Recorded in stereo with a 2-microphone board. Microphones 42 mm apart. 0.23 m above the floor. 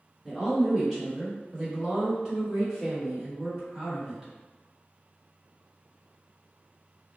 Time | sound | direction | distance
0.2 | a woman speaking | centre (ahead or behind) | 1.7 m